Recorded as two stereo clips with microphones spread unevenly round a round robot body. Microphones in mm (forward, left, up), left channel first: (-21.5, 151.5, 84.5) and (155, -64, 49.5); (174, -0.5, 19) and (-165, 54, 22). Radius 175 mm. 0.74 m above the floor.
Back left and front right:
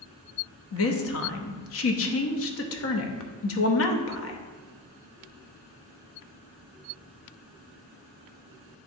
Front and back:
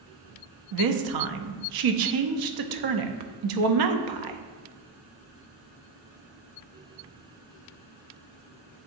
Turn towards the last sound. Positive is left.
turn(degrees=170)